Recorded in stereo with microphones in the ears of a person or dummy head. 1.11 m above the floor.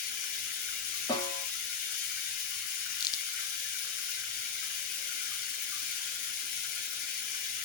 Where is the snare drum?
25° left (ahead or behind), 2.5 m.